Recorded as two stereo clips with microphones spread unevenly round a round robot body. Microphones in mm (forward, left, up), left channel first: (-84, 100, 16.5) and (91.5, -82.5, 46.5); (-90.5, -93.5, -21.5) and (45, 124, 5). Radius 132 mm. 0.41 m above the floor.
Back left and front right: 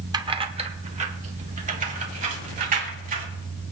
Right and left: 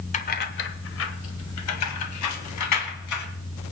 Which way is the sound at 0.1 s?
120° right.